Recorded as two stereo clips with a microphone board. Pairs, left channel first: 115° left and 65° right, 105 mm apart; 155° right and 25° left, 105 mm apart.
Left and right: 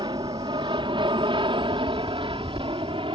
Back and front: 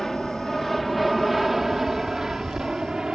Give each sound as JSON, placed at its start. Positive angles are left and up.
{"t": 0.0, "sound": "an aircraft", "azimuth_deg": -70}